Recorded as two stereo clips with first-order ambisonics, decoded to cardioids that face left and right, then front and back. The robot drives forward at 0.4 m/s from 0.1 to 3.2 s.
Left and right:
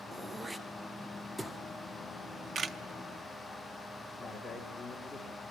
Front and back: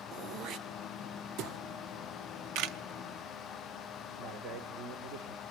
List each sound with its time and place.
0.1 s throat clearing: 165° right, 0.9 m; by 1.6 s 175° right, 1.4 m
2.5 s a camera shutter: 155° right, 0.6 m; by 2.8 s 160° right, 0.7 m
4.2 s a man speaking: 170° left, 2 m